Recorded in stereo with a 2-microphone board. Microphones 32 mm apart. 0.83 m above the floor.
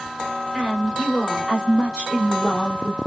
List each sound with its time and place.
0.5 s a woman speaking: 5° right (ahead or behind), 3 m; by 3.0 s 20° left (ahead or behind), 2 m